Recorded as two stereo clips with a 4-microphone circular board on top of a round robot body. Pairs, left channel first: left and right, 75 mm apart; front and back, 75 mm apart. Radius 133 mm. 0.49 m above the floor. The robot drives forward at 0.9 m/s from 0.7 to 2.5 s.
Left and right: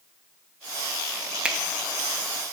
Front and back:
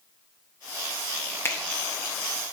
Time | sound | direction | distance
1.4 | a finger snap | 25° right | 1.0 m